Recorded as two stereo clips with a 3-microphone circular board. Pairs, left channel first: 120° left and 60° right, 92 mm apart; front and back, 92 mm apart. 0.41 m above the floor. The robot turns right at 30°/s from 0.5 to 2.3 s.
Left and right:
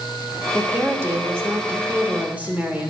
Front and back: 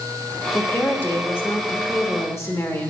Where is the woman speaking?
60° right, 1.2 m; by 2.9 s 5° right, 1.2 m.